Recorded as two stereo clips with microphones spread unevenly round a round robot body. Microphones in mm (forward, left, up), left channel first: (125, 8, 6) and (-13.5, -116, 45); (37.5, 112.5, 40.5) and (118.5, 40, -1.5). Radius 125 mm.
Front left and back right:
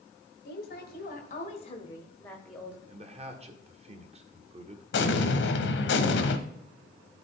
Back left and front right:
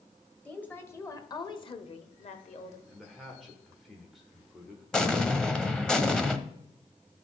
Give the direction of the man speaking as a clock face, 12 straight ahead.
3 o'clock.